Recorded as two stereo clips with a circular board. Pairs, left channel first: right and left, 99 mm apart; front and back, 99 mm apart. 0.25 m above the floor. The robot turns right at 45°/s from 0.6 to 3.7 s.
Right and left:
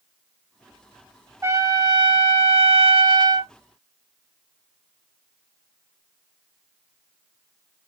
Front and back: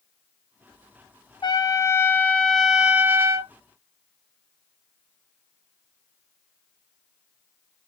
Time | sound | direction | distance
1.4 | a trumpet | 35° left | 0.6 m